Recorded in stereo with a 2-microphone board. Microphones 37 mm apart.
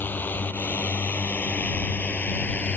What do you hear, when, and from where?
0.0 s a drone: 60° left (ahead or behind); by 2.8 s 45° left (ahead or behind)